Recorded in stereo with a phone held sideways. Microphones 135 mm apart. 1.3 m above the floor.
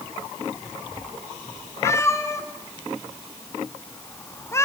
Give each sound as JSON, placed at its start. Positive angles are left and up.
{"t": 1.8, "sound": "a cat meowing", "side_deg": 20, "distance_m": 2.0}